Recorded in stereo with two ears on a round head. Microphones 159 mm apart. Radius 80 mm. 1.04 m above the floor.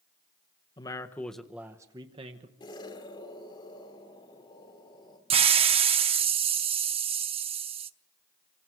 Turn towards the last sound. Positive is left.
turn(degrees=-35)  # may be behind; listen again after turning